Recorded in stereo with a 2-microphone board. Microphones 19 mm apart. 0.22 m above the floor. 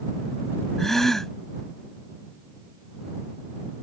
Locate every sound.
0.8 s a gasp: 20° left (ahead or behind)